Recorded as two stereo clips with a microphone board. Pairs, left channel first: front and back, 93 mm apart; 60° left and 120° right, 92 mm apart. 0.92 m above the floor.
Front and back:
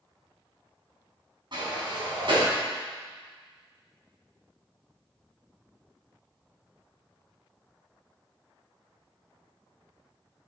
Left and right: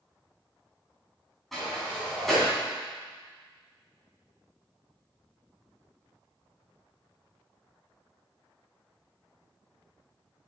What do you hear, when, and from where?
1.5 s a sliding door: 150° left, 3 m